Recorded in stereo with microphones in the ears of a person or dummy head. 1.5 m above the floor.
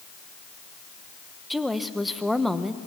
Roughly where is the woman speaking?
Centre.